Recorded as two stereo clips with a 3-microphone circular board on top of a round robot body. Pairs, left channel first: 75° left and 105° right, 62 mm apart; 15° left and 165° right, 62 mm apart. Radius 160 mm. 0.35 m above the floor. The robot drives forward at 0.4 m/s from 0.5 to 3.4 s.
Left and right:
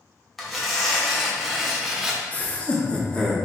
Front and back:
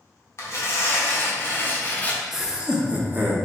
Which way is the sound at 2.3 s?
110° left.